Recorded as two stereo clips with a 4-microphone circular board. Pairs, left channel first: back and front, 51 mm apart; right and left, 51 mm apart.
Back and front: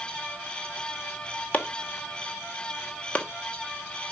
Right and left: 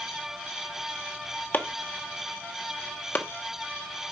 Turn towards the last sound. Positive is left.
turn(degrees=-130)